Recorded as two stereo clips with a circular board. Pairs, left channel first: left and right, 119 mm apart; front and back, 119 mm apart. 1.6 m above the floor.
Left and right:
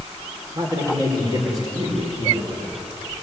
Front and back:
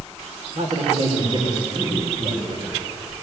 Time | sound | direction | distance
0.6 | a man speaking | 145° right | 5 m